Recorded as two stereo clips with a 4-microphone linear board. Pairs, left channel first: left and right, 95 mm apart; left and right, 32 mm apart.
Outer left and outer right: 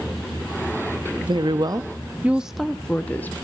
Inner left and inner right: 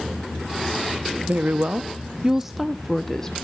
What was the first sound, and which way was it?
A woman speaking, 55° right (ahead or behind).